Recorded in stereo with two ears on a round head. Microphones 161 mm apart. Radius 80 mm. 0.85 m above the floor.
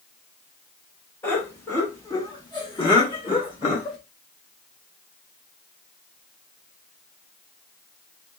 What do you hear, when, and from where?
1.2 s laughter: 10° left (ahead or behind), 1.6 m; by 4.0 s 25° left (ahead or behind), 1.3 m